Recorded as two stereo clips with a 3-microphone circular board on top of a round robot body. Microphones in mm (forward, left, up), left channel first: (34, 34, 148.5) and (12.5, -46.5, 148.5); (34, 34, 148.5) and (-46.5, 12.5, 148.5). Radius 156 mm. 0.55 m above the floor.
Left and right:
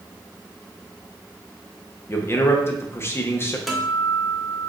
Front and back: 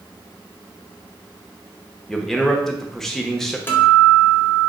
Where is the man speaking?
95° left, 0.9 m.